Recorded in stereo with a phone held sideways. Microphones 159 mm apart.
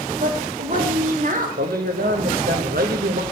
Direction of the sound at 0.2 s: 60° right (ahead or behind).